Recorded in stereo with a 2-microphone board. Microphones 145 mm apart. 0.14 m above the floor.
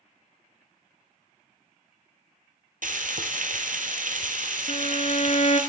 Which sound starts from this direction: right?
Frying, at 2.8 s.